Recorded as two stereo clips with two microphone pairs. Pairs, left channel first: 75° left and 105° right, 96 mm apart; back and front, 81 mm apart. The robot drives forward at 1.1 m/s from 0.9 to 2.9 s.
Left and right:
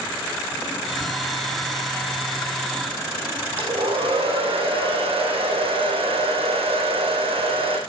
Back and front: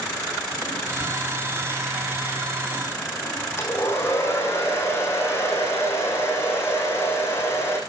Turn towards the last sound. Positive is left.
turn(degrees=-115)